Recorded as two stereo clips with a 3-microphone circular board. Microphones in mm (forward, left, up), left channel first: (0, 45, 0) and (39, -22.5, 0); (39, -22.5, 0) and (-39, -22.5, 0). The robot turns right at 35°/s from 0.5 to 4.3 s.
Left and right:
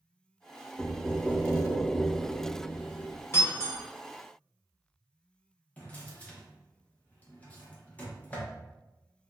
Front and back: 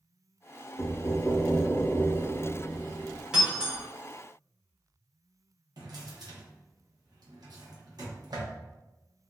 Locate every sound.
0.8 s knocking: 25° left, 0.8 m; by 3.2 s 110° left, 0.8 m
3.3 s breaking glass: 110° left, 1.2 m; by 3.8 s 130° left, 1.2 m
5.8 s a drawer: 175° right, 0.8 m